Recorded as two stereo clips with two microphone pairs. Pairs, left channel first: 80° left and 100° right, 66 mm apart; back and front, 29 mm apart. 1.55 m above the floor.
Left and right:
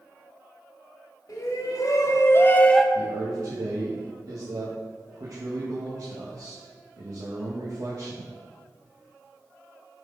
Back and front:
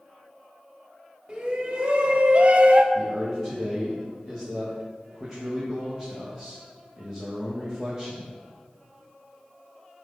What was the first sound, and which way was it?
A shout, 55° left.